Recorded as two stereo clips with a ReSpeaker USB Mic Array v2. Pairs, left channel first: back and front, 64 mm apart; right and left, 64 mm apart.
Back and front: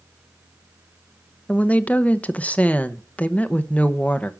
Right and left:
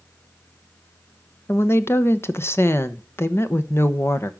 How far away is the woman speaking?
About 0.9 m.